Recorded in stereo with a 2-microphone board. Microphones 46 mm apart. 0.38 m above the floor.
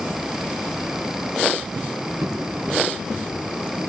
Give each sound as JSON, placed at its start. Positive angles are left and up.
{"t": 1.8, "sound": "footsteps", "side_deg": -75, "distance_m": 2.0}